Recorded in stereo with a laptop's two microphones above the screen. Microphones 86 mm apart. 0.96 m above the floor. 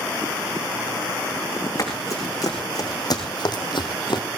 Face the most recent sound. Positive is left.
turn(degrees=60)  # may be behind; listen again after turning